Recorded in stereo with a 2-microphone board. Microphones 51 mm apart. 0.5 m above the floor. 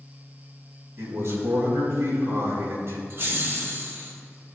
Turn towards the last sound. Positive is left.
turn(degrees=-50)  # may be behind; listen again after turning